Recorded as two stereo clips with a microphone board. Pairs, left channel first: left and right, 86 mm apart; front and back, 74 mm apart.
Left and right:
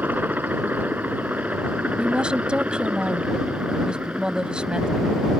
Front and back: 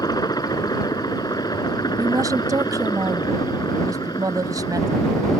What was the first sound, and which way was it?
A helicopter, 20° right.